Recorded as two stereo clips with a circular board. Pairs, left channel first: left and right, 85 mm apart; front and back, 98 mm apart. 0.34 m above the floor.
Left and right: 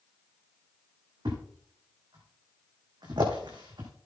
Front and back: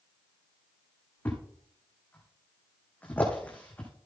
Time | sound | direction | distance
1.2 | a thud | 70° right | 3.5 m